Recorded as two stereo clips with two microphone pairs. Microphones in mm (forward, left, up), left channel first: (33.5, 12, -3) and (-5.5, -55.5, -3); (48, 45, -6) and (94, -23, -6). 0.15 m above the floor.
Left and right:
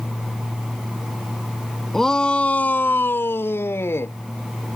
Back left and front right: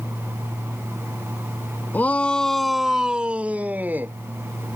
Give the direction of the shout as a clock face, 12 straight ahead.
7 o'clock.